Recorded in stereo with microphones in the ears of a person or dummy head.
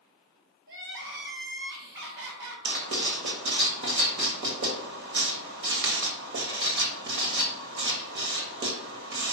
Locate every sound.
0.7 s crying: 70° right (ahead or behind), 1.9 m
2.6 s writing: 60° right (ahead or behind), 1.3 m